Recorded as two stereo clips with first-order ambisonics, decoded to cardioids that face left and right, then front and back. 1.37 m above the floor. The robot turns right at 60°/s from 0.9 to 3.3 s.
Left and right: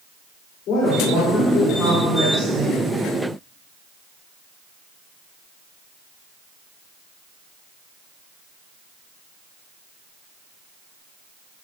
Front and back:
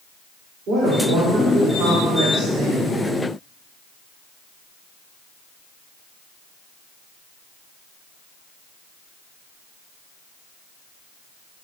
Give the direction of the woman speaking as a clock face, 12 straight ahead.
8 o'clock.